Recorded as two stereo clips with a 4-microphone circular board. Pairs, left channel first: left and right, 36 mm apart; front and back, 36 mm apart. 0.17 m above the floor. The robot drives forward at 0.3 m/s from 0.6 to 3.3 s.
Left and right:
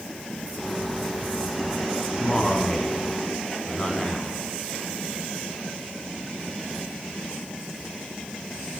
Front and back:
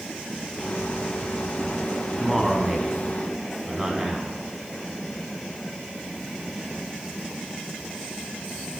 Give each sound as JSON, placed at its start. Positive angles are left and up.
{"t": 2.2, "sound": "a man speaking", "azimuth_deg": 85, "distance_m": 1.0}